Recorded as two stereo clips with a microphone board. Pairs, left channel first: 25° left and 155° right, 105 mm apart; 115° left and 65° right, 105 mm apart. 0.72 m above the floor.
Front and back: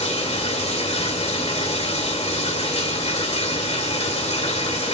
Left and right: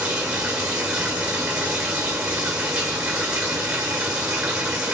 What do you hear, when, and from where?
0.0 s running water: 10° left, 2 m